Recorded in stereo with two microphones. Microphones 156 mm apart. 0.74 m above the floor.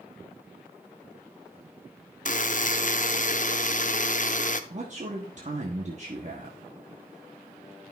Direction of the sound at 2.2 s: 50° left (ahead or behind).